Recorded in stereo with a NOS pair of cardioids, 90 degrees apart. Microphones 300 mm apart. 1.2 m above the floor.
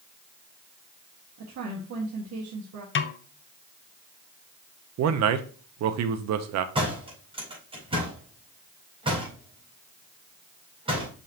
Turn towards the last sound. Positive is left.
turn(degrees=-15)